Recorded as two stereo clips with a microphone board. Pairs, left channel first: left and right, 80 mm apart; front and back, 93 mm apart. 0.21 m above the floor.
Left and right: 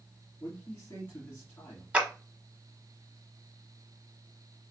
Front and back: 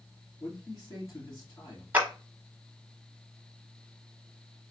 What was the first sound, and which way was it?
A man speaking, 35° left.